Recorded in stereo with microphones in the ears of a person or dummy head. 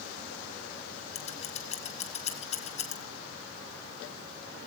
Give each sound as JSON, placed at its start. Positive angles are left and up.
{"t": 1.1, "sound": "scissors", "side_deg": 35, "distance_m": 1.9}